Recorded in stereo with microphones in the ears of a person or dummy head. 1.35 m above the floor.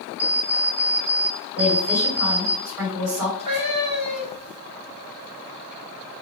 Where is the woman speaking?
5° right (ahead or behind), 2.5 m.